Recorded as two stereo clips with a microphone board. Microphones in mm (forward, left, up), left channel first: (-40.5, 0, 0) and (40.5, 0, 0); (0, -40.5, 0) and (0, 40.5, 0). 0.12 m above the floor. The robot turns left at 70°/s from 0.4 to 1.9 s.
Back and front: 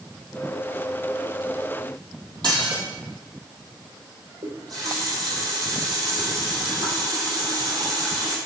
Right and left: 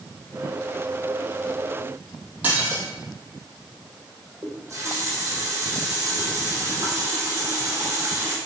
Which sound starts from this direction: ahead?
Dishes clattering, at 2.4 s.